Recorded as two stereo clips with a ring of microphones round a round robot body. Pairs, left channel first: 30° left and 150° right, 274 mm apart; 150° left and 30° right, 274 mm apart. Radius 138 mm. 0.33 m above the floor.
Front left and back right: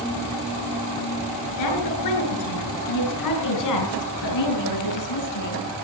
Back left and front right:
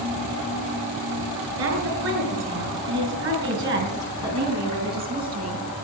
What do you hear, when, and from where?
1.6 s a woman speaking: 15° left, 6 m; by 5.6 s 30° left, 4.5 m